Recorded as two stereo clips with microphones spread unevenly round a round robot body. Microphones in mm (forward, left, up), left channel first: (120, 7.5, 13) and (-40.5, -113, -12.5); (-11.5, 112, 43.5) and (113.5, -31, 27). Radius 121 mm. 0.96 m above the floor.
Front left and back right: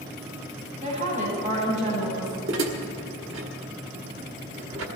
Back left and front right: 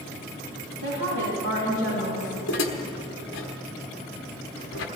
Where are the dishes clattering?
175° left, 1.2 m.